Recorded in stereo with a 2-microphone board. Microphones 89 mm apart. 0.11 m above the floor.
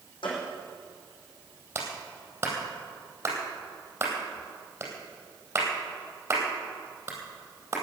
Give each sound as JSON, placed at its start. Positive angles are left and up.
{"t": 0.2, "sound": "a gunshot", "side_deg": 75, "distance_m": 5.0}
{"t": 1.8, "sound": "a clap", "side_deg": -25, "distance_m": 3.5}